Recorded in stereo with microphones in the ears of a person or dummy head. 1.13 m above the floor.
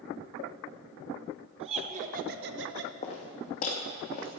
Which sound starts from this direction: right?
Laughter, at 1.6 s.